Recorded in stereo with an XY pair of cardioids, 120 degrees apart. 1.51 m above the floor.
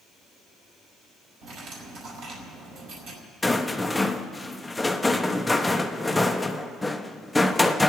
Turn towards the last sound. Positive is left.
turn(degrees=10)